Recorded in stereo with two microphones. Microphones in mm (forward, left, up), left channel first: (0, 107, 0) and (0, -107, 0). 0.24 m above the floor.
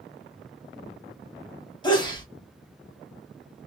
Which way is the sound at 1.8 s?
20° left (ahead or behind).